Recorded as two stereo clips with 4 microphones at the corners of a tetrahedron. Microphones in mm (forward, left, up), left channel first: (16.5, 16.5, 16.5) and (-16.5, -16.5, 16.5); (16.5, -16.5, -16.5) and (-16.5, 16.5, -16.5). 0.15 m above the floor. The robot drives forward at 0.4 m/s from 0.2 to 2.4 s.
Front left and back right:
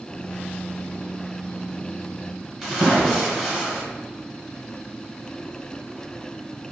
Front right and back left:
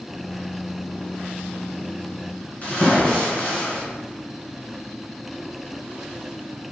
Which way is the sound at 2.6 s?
55° right.